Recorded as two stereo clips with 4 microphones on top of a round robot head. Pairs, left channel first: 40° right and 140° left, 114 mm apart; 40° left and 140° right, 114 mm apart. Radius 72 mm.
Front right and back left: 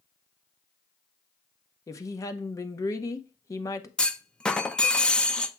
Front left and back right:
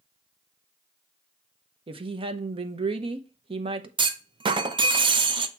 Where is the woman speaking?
100° right, 0.8 m.